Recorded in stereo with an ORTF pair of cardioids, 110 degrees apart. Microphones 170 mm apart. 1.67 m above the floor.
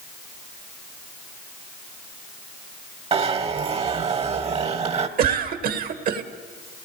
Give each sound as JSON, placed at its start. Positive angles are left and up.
{"t": 3.1, "sound": "a zipper", "azimuth_deg": -35, "distance_m": 1.3}
{"t": 5.2, "sound": "a cough", "azimuth_deg": -60, "distance_m": 1.8}